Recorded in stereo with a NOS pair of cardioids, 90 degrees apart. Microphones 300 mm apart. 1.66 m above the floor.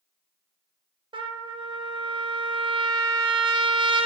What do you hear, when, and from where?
1.1 s a trumpet: 15° right, 0.7 m